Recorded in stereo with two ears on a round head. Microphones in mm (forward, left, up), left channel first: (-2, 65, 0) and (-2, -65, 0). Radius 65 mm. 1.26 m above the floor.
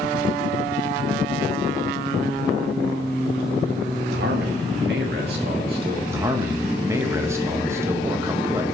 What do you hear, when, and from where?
4.1 s a man speaking: 75° right (ahead or behind), 1.3 m; by 6.0 s 70° right (ahead or behind), 2.5 m
6.1 s a man speaking: 20° right (ahead or behind), 1.0 m